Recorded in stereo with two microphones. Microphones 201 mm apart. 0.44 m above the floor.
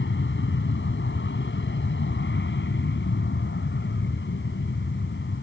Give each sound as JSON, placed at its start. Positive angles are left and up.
{"t": 0.0, "sound": "an aircraft", "side_deg": 70}